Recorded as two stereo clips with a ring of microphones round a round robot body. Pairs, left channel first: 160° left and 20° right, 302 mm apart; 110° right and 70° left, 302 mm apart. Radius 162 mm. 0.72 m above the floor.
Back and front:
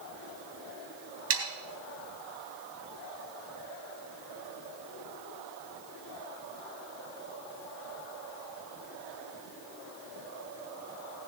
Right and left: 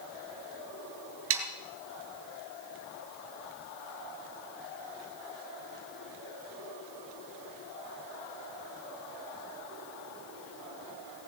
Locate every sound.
1.3 s sawing: 20° left, 3 m